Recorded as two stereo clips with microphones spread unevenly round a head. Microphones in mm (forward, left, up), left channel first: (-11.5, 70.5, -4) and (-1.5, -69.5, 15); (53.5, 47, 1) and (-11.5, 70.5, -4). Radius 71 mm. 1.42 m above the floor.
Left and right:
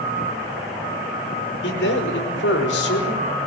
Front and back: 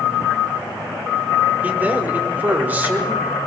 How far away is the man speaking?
About 5.5 m.